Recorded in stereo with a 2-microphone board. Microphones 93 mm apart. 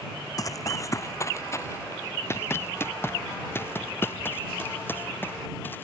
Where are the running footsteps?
40° left (ahead or behind); by 5.8 s 20° left (ahead or behind).